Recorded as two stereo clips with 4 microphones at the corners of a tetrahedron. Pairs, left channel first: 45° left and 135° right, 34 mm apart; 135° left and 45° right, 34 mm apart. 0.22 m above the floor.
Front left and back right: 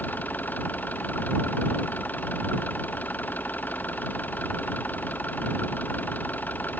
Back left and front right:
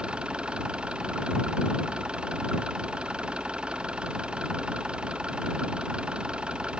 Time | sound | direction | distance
0.0 | an engine running | 15° left | ?